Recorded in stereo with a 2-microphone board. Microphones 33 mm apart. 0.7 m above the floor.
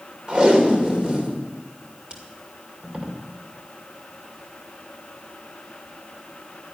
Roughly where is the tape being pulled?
Right.